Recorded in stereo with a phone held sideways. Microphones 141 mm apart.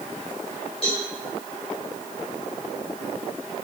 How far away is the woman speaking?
I don't hear a woman speaking.